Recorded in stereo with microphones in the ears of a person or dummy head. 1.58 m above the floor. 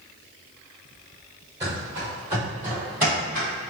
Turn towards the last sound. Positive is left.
turn(degrees=5)  # may be behind; listen again after turning